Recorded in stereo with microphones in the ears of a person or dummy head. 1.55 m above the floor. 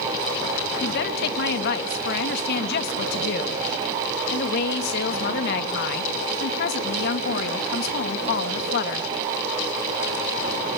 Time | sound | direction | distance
0.8 | a woman speaking | 55° left (ahead or behind) | 1.8 m